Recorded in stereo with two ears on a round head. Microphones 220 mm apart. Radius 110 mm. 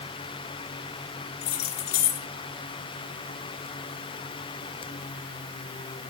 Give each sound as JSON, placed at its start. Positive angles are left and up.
{"t": 1.4, "sound": "keys jangling", "side_deg": 75, "distance_m": 1.7}